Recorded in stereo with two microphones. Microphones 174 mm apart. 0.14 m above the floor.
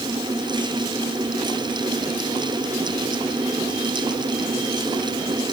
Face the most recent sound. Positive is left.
No sound to turn to.